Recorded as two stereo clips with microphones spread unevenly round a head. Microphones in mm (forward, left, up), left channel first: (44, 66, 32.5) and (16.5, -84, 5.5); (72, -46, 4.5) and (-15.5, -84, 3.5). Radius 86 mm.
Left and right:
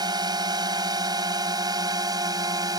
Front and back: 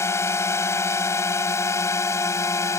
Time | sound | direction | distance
0.0 | a drone | 35° right | ?